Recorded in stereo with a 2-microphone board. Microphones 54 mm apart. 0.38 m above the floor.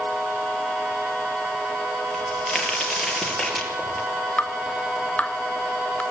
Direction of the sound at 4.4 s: 30° left (ahead or behind).